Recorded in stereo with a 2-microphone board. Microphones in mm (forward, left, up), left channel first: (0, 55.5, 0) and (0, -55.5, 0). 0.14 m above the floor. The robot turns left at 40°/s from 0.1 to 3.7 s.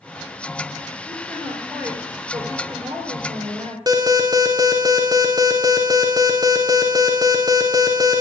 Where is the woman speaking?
20° left, 3 m; by 3.8 s 85° right, 3 m.